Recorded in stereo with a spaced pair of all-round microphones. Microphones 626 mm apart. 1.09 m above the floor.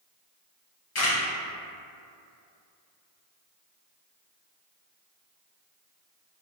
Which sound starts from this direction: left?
A camera shutter, at 0.9 s.